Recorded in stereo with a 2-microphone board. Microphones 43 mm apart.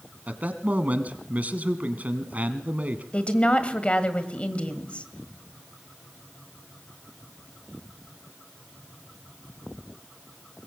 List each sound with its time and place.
0.3 s a man speaking: 40° right (ahead or behind), 1.9 m
3.1 s a woman speaking: 30° left (ahead or behind), 1.7 m